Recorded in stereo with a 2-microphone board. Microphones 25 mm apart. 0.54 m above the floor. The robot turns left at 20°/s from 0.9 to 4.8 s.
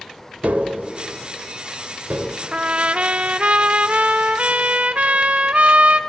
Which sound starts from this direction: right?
Tapping, at 0.4 s.